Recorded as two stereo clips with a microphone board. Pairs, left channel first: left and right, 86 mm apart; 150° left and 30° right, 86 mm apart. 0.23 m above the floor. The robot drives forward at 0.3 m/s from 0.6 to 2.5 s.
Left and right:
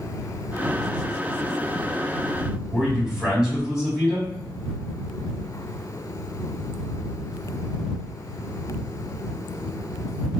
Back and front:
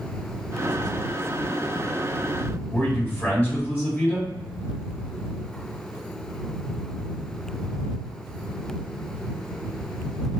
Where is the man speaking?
170° right, 1.9 m.